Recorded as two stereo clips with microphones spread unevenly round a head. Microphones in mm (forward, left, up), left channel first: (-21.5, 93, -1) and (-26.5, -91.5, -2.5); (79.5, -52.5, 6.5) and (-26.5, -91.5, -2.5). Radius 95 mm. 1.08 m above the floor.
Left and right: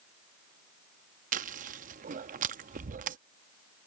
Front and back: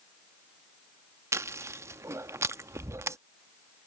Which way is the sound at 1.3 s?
100° right.